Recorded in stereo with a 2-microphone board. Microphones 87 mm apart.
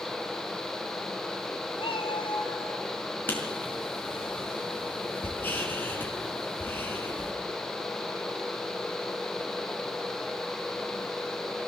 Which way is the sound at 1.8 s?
75° left (ahead or behind).